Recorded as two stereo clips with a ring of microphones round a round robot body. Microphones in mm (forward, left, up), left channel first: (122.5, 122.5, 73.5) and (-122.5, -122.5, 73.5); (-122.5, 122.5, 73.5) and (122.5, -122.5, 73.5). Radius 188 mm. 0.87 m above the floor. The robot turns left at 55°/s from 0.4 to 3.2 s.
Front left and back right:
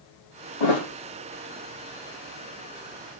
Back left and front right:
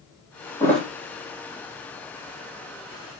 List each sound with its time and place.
0.6 s a thud: 55° left, 4 m; by 0.9 s 40° left, 4 m